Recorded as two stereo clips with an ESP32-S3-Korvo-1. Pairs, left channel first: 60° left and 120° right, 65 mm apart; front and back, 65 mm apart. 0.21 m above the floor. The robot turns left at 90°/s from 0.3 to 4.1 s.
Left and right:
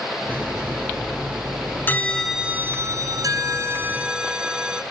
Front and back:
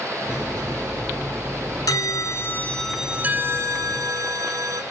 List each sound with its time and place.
1.9 s a bell: 5° left, 1.0 m; by 4.8 s 165° left, 1.0 m